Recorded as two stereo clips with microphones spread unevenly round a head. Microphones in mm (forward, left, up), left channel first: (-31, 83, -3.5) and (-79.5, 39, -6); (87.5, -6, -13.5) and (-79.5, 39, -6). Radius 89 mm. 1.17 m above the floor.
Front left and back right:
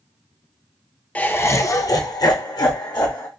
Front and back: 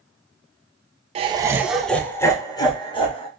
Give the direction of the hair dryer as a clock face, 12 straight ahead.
I don't hear a hair dryer.